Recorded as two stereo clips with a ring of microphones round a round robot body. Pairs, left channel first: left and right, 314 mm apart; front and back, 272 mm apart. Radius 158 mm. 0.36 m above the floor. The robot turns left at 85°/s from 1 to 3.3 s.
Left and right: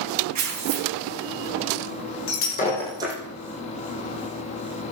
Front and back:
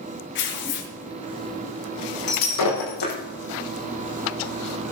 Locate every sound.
0.3 s tearing paper: 55° right, 3 m
2.3 s breaking glass: 50° left, 6 m; by 3.1 s 25° right, 6 m